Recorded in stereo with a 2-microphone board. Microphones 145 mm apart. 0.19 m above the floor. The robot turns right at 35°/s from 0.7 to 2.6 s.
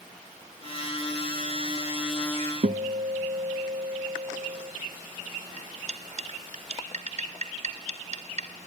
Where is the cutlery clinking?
60° right (ahead or behind), 1.5 m.